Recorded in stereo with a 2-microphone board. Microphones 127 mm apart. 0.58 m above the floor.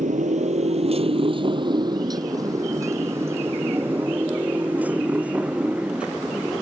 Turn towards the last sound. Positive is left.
turn(degrees=-5)  # may be behind; listen again after turning